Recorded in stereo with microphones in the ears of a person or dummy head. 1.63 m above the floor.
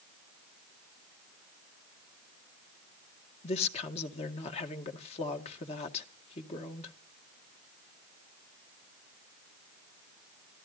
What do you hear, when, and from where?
3.4 s a woman speaking: 35° left (ahead or behind), 2 m